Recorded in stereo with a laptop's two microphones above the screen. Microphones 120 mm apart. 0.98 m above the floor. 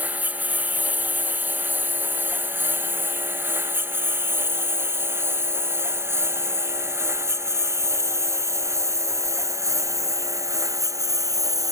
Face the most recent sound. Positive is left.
turn(degrees=-30)  # may be behind; listen again after turning